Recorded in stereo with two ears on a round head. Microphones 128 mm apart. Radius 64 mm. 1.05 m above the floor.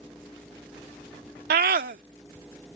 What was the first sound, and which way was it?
A scream, 65° right (ahead or behind).